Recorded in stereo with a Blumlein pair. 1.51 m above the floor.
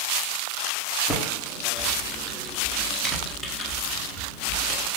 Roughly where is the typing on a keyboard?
Ahead.